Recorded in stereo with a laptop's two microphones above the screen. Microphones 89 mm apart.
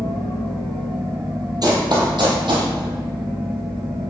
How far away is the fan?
About 2 m.